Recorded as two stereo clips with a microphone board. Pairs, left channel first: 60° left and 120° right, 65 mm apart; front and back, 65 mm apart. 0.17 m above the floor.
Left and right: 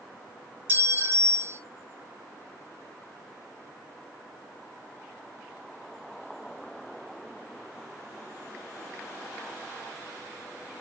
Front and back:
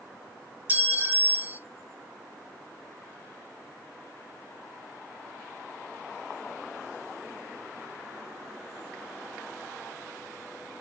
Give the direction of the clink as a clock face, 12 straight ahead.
5 o'clock.